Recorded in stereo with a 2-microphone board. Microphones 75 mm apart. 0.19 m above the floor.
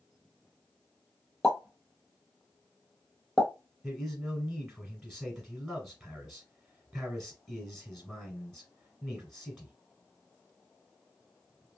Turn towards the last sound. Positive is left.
turn(degrees=-5)  # may be behind; listen again after turning